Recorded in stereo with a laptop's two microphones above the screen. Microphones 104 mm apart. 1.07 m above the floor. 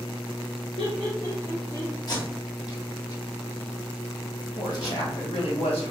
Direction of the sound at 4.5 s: 75° left (ahead or behind).